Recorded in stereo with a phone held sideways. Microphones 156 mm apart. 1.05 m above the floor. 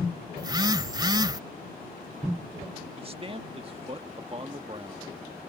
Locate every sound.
0.4 s a phone buzzing: 25° right (ahead or behind)
3.0 s a man speaking: 35° right (ahead or behind)